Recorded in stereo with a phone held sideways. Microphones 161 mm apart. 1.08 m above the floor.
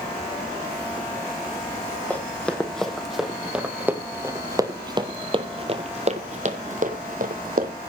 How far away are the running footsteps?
About 2.5 m.